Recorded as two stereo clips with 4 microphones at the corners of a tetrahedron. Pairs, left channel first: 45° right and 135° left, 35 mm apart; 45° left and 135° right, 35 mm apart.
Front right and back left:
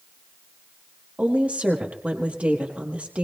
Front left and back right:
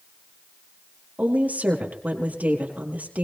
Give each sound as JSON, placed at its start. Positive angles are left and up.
{"t": 1.2, "sound": "a woman speaking", "azimuth_deg": -175, "distance_m": 4.0}